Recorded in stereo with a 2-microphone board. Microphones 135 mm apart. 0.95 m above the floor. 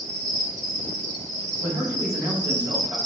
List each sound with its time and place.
0.0 s an insect: 60° right (ahead or behind), 2 m
1.6 s a man speaking: 25° right (ahead or behind), 2 m